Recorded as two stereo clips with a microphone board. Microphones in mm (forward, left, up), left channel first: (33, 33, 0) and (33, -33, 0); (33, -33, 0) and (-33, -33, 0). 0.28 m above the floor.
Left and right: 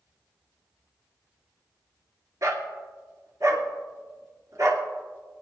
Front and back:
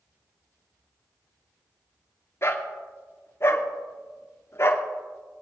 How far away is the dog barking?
About 1.4 m.